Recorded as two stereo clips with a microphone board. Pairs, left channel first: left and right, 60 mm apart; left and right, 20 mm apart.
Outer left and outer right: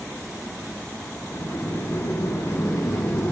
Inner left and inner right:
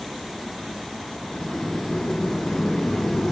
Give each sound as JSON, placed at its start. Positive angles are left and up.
{"t": 1.3, "sound": "a sliding door", "side_deg": 55, "distance_m": 2.5}